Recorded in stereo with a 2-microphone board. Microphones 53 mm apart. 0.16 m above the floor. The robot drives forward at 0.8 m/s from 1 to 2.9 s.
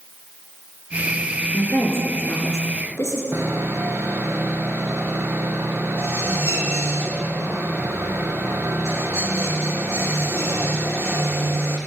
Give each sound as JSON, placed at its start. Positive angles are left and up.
{"t": 1.5, "sound": "a woman speaking", "side_deg": 45, "distance_m": 3.0}
{"t": 3.3, "sound": "sawing", "side_deg": -50, "distance_m": 1.5}